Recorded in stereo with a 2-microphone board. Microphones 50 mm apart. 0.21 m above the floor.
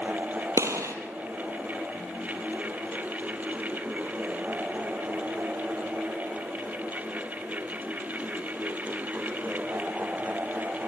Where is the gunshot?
75° right (ahead or behind), 2 m.